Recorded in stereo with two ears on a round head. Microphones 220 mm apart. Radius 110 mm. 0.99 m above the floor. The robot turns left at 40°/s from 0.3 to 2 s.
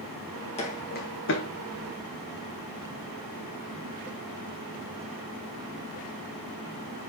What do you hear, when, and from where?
0.6 s footsteps: 25° left (ahead or behind), 3 m; by 1.5 s 60° left (ahead or behind), 3 m